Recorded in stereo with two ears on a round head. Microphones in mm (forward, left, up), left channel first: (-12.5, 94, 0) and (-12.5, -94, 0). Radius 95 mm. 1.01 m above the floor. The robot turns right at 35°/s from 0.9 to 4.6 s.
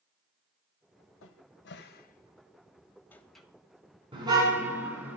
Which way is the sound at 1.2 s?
70° left (ahead or behind).